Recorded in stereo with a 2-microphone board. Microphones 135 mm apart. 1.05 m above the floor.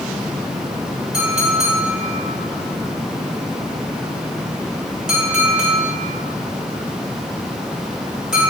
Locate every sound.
1.1 s a clink: 5° right (ahead or behind), 3.5 m